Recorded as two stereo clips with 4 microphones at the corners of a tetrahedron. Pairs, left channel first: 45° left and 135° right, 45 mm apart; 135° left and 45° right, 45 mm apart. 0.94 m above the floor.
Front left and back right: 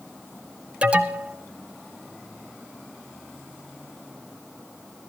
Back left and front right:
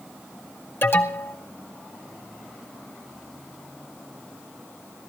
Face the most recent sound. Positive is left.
turn(degrees=160)